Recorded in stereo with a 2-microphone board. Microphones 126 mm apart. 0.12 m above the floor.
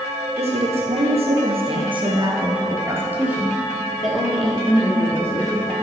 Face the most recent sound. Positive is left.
turn(degrees=15)  # may be behind; listen again after turning